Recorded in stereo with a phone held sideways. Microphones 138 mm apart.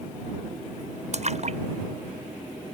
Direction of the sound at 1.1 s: 55° right (ahead or behind).